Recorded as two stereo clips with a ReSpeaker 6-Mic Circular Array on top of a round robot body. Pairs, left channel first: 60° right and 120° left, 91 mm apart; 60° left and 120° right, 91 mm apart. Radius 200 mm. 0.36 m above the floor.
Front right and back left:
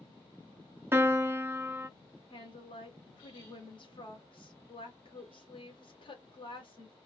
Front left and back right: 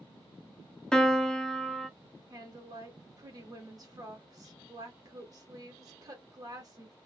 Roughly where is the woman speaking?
Right.